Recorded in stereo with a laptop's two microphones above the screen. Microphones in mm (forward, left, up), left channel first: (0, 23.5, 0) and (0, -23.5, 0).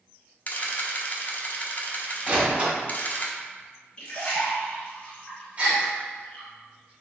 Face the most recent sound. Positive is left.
turn(degrees=-30)  # may be behind; listen again after turning